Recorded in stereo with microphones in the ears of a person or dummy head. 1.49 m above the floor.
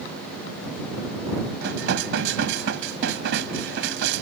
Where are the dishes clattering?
70° right (ahead or behind).